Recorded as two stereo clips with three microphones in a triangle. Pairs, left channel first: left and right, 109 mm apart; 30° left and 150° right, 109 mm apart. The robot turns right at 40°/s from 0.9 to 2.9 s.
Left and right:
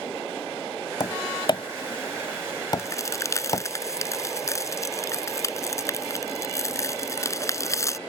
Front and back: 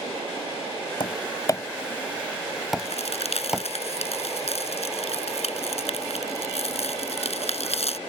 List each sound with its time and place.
1.0 s tapping: 55° left; by 3.6 s 130° left
2.8 s a crack: 25° left; by 8.0 s 30° left